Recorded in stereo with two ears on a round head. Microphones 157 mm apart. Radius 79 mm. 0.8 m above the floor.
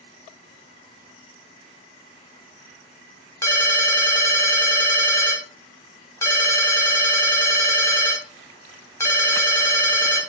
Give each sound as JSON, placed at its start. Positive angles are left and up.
{"t": 3.4, "sound": "a ringtone", "side_deg": 15, "distance_m": 0.8}